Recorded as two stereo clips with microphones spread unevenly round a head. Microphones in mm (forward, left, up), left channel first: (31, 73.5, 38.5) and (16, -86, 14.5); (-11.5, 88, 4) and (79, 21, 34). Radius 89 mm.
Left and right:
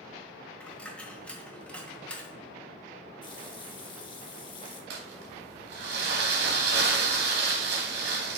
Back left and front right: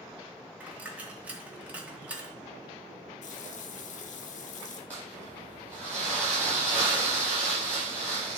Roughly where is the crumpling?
Behind right.